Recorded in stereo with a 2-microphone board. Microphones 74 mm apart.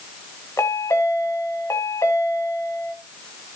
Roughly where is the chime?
Left.